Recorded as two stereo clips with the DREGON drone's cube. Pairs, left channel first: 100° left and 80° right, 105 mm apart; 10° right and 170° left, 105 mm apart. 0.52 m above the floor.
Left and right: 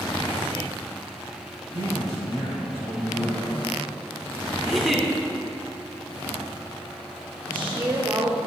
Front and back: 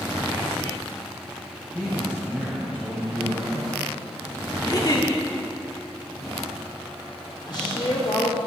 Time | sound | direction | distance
1.7 | a man speaking | 100° left | 2.5 m
4.6 | a giggle | 10° left | 1.2 m
7.5 | a woman speaking | 20° right | 1.7 m